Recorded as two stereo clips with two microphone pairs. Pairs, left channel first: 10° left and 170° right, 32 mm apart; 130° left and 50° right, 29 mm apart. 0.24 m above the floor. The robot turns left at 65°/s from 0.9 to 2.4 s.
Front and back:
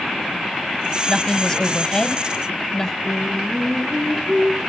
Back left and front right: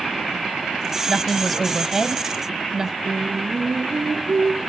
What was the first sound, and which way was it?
A woman speaking, 65° left.